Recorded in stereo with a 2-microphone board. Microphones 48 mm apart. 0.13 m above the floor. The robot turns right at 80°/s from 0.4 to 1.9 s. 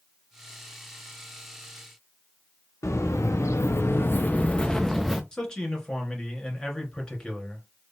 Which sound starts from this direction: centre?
A man speaking, at 5.3 s.